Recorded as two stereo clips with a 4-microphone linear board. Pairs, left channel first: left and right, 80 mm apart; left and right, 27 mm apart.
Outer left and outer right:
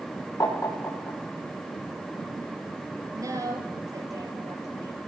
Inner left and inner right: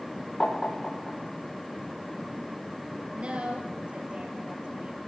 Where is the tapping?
50° left (ahead or behind), 7.5 m.